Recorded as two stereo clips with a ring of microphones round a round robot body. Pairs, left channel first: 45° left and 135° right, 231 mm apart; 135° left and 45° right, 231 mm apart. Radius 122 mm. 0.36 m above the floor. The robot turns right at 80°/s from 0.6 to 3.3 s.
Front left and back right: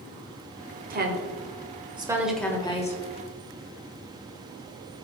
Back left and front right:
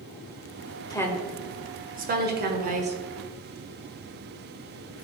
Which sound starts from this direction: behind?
A woman speaking, at 0.9 s.